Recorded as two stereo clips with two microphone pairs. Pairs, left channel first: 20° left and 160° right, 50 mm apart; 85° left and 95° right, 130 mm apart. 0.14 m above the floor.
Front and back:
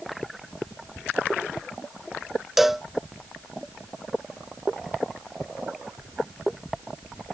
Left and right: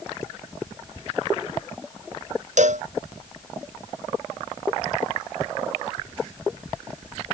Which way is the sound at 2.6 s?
75° right.